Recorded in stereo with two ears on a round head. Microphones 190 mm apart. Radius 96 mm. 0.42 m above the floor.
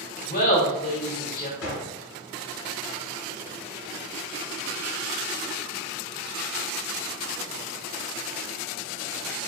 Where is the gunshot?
65° left (ahead or behind), 1.4 m.